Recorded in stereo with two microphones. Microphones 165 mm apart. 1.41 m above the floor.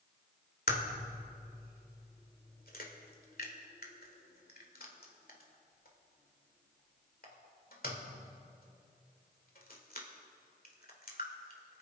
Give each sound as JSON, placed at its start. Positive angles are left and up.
{"t": 0.7, "sound": "a crack", "side_deg": 65, "distance_m": 2.0}